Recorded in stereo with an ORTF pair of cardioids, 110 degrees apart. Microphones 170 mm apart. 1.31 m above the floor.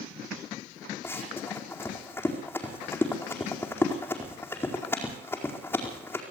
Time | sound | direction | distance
1.0 | running footsteps | 15° left | 4.5 m